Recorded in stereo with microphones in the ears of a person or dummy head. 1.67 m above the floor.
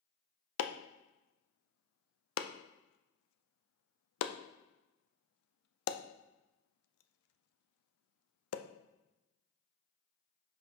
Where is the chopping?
80° left, 0.6 m.